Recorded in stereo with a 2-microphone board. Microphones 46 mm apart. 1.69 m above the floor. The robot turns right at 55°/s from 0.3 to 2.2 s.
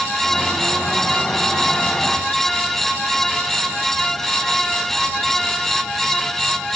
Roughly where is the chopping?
I don't hear chopping.